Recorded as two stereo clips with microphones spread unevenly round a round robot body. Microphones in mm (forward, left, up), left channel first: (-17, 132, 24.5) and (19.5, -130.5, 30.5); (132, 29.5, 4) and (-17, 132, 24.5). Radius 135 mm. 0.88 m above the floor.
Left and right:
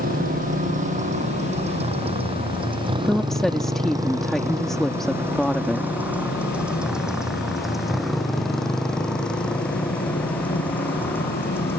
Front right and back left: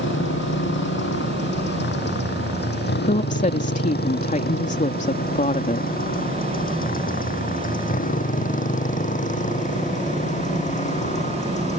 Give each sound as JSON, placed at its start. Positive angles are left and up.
{"t": 0.0, "sound": "a motorcycle", "azimuth_deg": -20}
{"t": 3.0, "sound": "a woman speaking", "azimuth_deg": 10}